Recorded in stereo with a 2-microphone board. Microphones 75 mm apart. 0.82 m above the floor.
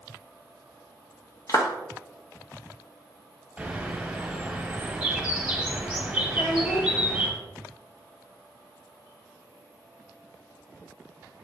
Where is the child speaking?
45° left (ahead or behind), 1.4 m.